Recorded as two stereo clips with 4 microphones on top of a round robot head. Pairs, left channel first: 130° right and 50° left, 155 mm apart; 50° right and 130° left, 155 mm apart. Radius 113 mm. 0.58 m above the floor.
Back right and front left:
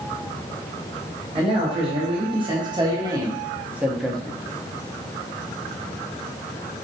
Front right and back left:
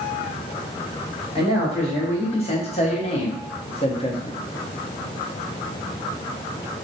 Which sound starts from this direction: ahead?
A man speaking, at 1.4 s.